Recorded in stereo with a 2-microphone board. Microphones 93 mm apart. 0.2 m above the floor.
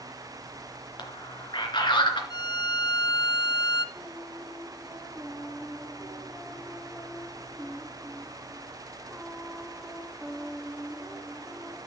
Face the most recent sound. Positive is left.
turn(degrees=-5)  # may be behind; listen again after turning